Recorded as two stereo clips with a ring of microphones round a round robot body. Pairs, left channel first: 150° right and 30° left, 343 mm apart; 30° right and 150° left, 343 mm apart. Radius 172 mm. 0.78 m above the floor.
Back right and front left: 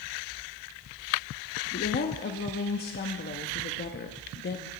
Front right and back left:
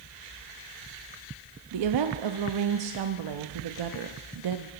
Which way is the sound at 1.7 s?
150° left.